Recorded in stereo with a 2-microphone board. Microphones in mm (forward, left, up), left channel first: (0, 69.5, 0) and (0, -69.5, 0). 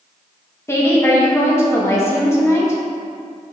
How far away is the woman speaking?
About 1.4 m.